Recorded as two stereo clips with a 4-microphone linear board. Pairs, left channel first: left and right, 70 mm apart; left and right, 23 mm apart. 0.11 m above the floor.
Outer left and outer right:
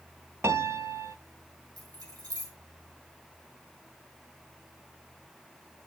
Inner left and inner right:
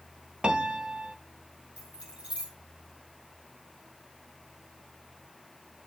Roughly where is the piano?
Right.